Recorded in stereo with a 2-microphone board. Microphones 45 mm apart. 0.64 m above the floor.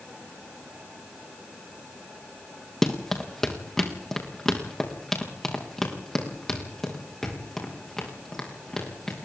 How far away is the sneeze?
No sneeze in this recording.